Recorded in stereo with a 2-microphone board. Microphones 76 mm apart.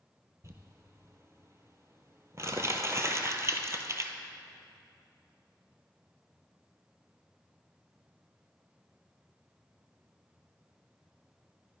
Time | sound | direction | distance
0.4 | crumpling | 40° right (ahead or behind) | 0.7 m